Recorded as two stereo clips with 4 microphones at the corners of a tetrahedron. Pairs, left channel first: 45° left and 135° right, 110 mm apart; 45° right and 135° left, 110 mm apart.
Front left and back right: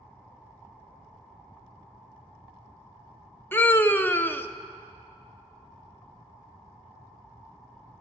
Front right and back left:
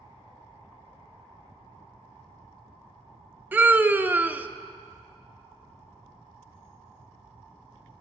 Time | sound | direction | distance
3.5 | a scream | 85° left | 0.6 m